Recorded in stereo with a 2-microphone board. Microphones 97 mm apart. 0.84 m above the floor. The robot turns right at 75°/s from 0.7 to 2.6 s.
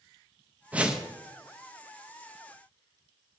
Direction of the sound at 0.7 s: 15° right (ahead or behind).